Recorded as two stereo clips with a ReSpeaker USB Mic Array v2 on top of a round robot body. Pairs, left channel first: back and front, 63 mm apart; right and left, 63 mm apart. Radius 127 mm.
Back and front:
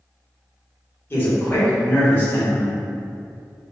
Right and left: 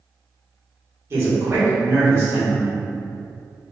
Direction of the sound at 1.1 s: 130° left.